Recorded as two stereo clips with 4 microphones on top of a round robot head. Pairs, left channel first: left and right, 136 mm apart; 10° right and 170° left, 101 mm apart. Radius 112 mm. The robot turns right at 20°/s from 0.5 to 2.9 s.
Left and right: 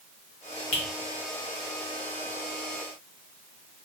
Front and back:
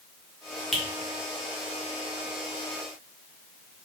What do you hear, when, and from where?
0.7 s a finger snap: 80° left, 0.5 m